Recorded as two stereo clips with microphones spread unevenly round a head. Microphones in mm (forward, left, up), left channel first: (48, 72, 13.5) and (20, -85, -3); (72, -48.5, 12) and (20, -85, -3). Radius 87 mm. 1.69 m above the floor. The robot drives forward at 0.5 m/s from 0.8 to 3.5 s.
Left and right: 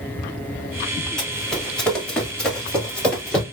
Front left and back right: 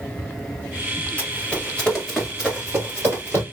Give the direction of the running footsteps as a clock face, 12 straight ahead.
12 o'clock.